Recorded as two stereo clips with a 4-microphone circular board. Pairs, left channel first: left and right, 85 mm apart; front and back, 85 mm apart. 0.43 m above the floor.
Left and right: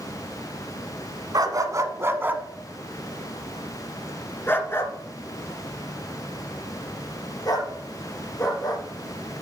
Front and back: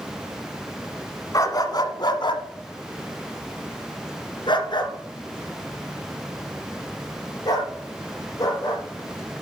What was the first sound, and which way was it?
A dog barking, 50° right.